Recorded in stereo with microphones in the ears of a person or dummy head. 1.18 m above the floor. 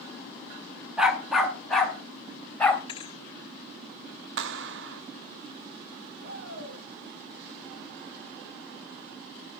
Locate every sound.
1.0 s a dog barking: 5° right (ahead or behind), 1.5 m; by 2.8 s 10° left (ahead or behind), 2.5 m
2.9 s a thud: 25° left (ahead or behind), 0.9 m
4.4 s a clap: 75° right (ahead or behind), 1.0 m
6.2 s a shout: 90° right, 7.5 m